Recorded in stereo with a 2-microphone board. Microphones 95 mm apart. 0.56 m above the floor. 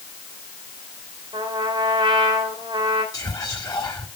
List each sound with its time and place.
1.3 s a trumpet: 60° right (ahead or behind), 2.5 m
3.1 s whispering: 40° left (ahead or behind), 1.3 m